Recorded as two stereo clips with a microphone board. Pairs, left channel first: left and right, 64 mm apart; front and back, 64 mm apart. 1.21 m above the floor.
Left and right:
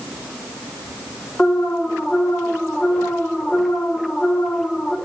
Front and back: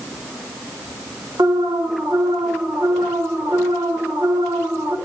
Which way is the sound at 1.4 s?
160° left.